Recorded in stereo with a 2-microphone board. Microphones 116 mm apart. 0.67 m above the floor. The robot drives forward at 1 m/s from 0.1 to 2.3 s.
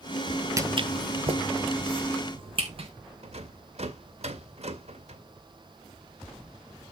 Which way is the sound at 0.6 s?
25° right (ahead or behind).